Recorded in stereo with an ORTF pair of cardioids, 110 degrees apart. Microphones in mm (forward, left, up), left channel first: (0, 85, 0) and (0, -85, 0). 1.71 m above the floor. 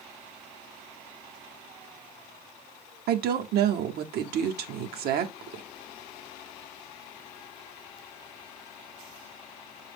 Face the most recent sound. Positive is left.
turn(degrees=-70)